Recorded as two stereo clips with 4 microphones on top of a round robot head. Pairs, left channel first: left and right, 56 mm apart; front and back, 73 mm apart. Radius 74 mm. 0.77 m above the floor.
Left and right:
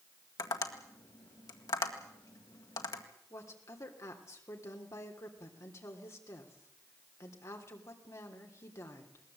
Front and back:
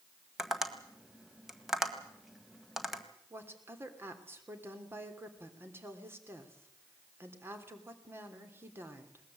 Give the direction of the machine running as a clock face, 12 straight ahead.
No machine running in this recording.